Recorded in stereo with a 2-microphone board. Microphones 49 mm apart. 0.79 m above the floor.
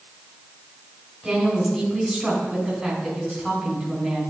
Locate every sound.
1.2 s a woman speaking: 5° right (ahead or behind), 3 m